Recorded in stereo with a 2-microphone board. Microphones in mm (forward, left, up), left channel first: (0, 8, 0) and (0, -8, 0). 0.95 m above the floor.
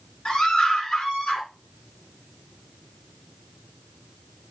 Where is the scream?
85° left, 9 m.